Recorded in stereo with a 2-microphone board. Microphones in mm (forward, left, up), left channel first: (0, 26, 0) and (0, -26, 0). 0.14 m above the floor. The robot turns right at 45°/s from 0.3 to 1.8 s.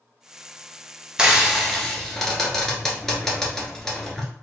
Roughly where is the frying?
Centre.